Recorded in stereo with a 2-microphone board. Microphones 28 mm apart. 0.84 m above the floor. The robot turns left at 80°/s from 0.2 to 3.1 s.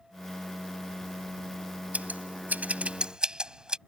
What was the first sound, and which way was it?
Scissors, 55° right (ahead or behind).